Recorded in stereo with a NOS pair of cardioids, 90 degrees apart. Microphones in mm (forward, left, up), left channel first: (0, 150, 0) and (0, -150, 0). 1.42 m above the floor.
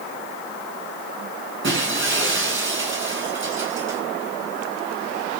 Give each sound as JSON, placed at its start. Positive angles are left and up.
{"t": 1.6, "sound": "breaking glass", "azimuth_deg": -40, "distance_m": 9.5}